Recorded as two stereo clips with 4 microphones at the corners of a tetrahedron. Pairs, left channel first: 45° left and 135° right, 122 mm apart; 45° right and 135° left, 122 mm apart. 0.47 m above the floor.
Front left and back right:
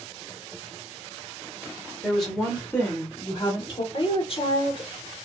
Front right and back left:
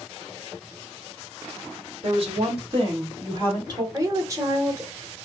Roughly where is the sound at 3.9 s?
Left.